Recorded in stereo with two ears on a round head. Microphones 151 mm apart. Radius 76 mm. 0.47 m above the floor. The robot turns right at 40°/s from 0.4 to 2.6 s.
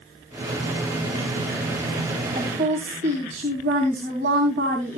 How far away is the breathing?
No breathing in this recording.